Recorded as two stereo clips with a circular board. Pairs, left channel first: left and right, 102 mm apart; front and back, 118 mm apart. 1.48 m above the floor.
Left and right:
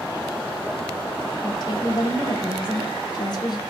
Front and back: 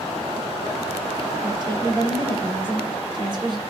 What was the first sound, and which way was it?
A woman speaking, 130° left.